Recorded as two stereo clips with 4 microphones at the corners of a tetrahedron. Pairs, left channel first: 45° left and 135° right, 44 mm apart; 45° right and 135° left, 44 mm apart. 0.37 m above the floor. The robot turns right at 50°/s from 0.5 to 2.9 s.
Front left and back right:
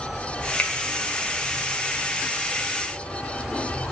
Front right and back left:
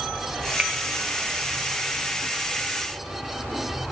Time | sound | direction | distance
0.6 | a finger snap | 80° left | 1.5 m